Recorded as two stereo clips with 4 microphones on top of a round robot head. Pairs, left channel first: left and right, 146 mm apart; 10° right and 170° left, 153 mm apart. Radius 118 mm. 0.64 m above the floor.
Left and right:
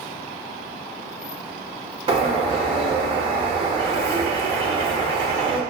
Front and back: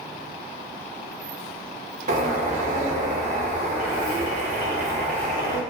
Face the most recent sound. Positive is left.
turn(degrees=-145)